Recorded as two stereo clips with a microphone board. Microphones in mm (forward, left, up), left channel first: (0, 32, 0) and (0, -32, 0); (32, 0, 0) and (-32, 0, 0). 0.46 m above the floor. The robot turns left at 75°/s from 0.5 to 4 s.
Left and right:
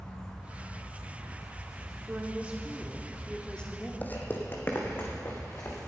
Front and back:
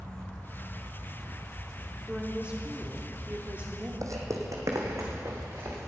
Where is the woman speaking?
100° right, 1.0 m; by 3.9 s 120° left, 1.0 m.